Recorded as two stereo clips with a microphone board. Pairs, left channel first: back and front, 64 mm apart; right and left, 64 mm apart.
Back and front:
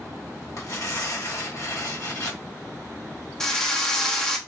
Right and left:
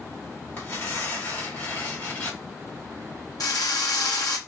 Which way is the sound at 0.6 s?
140° right.